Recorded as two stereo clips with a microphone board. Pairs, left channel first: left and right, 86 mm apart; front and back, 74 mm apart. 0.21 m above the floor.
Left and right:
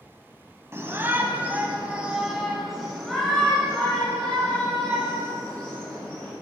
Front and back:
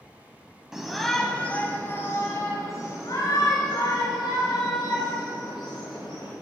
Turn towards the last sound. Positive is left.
turn(degrees=15)